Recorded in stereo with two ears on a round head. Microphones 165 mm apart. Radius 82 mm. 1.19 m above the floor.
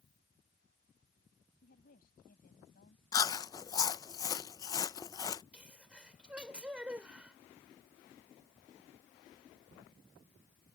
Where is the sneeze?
5° right (ahead or behind).